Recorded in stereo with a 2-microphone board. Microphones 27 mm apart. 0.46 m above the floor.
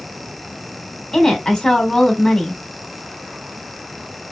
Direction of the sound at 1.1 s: 20° left (ahead or behind).